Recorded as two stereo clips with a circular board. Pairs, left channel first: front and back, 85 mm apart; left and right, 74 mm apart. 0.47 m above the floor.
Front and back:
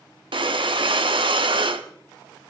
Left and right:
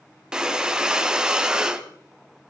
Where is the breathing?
170° right, 0.8 m.